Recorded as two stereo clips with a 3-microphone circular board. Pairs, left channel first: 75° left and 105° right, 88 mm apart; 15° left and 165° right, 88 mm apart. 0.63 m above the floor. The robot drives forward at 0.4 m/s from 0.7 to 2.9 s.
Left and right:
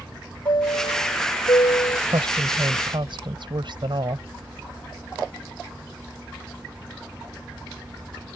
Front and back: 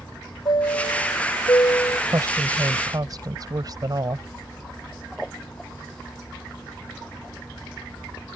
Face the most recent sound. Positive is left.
turn(degrees=-125)